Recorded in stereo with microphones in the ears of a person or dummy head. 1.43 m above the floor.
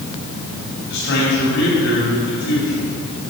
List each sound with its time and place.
0.9 s a man speaking: 70° left (ahead or behind), 3.5 m